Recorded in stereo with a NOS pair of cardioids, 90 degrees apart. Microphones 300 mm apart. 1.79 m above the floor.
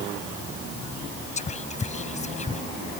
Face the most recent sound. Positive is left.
turn(degrees=25)